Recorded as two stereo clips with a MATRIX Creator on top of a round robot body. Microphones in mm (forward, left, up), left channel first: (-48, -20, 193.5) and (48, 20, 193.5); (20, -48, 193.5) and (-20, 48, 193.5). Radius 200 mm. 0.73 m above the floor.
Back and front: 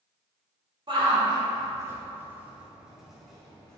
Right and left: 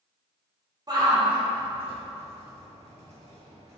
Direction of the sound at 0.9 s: 60° left.